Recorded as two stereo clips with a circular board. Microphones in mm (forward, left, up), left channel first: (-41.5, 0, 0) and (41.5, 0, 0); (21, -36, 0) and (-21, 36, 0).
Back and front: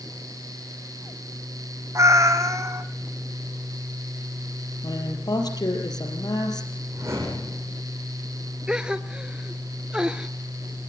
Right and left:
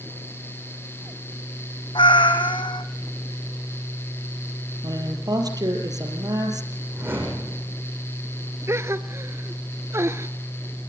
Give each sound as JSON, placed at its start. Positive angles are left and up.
{"t": 1.9, "sound": "a cat meowing", "azimuth_deg": -50, "distance_m": 1.7}
{"t": 4.8, "sound": "a woman speaking", "azimuth_deg": 150, "distance_m": 3.5}
{"t": 6.9, "sound": "a whoosh", "azimuth_deg": 55, "distance_m": 8.5}
{"t": 8.7, "sound": "a gasp", "azimuth_deg": 75, "distance_m": 0.8}